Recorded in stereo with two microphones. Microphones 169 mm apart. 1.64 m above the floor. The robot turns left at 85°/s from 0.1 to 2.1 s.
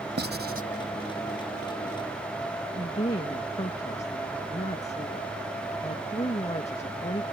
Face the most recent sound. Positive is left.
turn(degrees=40)  # may be behind; listen again after turning